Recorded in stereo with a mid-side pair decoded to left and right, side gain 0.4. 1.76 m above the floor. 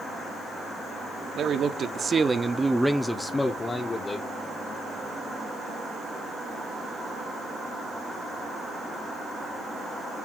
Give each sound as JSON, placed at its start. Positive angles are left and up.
{"t": 1.4, "sound": "a man speaking", "azimuth_deg": -70, "distance_m": 1.3}